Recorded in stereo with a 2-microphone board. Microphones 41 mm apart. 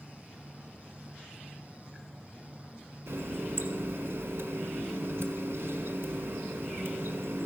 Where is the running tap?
80° right, 1.3 m.